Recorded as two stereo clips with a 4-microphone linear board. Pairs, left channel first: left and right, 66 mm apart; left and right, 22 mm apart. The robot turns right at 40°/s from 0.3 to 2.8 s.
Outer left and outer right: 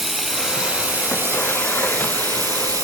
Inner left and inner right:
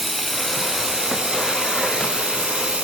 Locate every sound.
0.0 s running water: straight behind, 0.9 m; by 2.9 s 80° right, 0.9 m